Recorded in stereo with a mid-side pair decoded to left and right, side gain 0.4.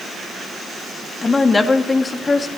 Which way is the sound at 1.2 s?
30° left.